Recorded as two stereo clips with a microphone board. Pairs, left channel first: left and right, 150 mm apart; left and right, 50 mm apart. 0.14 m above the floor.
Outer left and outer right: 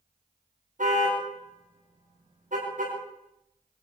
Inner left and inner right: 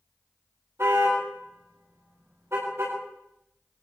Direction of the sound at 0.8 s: 60° right (ahead or behind).